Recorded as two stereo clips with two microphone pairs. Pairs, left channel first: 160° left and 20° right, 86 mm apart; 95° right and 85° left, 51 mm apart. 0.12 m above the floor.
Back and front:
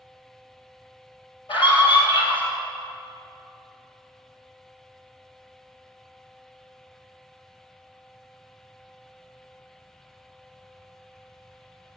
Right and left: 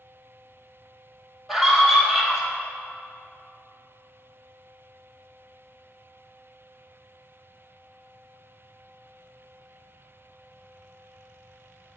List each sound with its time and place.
1.5 s a scream: 175° left, 3.5 m